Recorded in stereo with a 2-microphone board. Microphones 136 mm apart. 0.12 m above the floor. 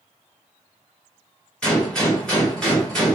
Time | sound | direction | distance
1.6 | a gunshot | 5° left (ahead or behind) | 1.8 m